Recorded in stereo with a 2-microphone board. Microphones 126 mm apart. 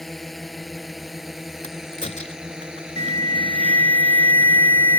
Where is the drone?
Centre (ahead or behind); by 5.0 s 15° right (ahead or behind).